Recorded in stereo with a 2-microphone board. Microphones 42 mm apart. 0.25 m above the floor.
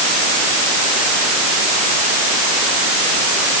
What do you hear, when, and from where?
Only background noise.